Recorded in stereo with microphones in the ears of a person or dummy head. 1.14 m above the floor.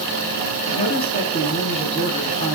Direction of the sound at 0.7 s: 40° left (ahead or behind).